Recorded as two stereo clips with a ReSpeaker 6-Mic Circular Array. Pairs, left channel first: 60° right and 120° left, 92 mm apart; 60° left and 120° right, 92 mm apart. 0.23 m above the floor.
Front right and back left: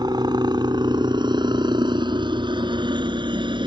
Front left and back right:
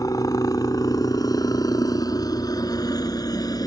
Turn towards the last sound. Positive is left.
turn(degrees=100)